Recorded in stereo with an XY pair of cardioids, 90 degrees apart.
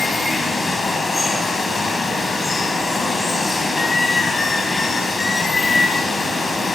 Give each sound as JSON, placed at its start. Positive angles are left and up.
{"t": 0.0, "sound": "running water", "azimuth_deg": 40, "distance_m": 4.0}